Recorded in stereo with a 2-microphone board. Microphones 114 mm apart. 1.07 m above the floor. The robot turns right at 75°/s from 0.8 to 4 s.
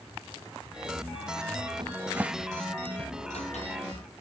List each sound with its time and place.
1.8 s a cupboard door: 45° right (ahead or behind), 0.6 m; by 3.7 s 75° left (ahead or behind), 0.6 m